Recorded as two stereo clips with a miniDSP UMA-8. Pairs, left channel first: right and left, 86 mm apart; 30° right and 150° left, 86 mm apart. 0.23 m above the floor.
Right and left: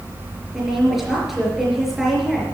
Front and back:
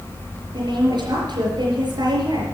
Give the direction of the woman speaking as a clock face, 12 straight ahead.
6 o'clock.